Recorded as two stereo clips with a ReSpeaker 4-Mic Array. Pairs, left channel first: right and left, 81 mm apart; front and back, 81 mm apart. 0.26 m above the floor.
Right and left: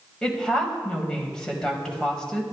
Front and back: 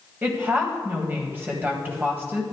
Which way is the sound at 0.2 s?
160° right.